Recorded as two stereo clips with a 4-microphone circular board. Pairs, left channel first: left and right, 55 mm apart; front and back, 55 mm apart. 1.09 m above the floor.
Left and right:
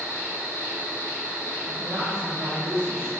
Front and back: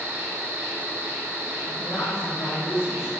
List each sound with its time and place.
0.0 s an insect: 135° left, 2.0 m
1.7 s a woman speaking: 90° right, 1.4 m